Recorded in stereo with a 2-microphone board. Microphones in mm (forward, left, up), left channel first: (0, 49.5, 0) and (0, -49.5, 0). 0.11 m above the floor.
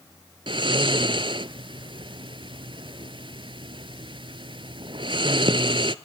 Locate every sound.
0.5 s snoring: 55° right (ahead or behind), 0.6 m